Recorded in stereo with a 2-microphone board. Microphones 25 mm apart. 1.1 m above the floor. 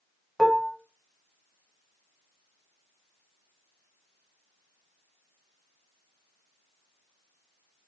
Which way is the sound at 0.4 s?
5° left (ahead or behind).